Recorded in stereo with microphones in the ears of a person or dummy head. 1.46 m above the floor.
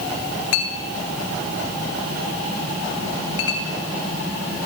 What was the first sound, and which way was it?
A clink, 70° left (ahead or behind).